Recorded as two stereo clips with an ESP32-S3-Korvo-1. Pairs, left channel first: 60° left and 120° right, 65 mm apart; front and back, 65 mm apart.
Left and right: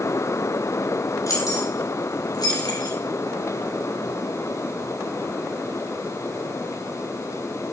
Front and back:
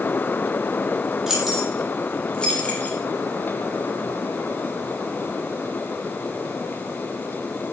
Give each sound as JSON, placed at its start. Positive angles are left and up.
{"t": 1.3, "sound": "keys jangling", "azimuth_deg": 95, "distance_m": 5.0}